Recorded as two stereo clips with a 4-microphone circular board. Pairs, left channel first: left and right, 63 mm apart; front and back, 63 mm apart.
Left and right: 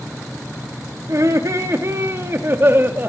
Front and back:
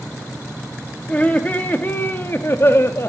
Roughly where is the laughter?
Ahead right.